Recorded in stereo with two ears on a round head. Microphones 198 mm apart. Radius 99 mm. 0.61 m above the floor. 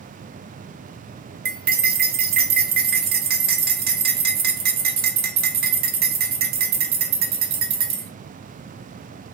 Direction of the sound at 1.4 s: 45° right (ahead or behind).